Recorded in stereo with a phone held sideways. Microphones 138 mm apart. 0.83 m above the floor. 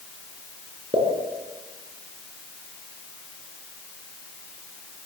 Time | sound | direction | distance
0.9 | a pop | 40° right (ahead or behind) | 5 m